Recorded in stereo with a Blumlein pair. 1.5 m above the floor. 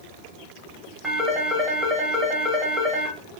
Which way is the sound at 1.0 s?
5° right.